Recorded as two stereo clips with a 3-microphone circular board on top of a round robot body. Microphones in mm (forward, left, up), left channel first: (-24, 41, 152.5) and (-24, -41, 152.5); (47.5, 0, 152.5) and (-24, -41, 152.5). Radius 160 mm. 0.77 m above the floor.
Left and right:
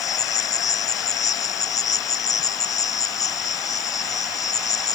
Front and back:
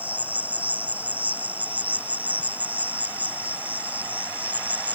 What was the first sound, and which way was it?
An insect, 135° left.